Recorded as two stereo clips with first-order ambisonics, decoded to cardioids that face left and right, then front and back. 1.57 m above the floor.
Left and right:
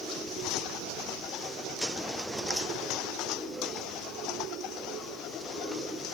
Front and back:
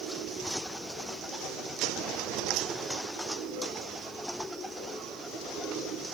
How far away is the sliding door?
I don't hear a sliding door.